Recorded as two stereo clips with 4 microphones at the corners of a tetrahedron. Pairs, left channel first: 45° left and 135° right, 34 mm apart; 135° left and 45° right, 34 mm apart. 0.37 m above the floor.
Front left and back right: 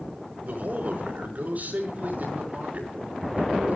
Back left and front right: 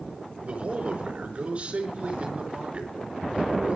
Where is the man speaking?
100° right, 4.5 m.